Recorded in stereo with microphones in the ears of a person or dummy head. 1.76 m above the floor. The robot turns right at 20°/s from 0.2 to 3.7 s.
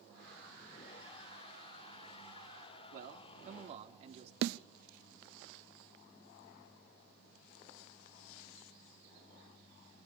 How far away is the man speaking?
About 3.5 m.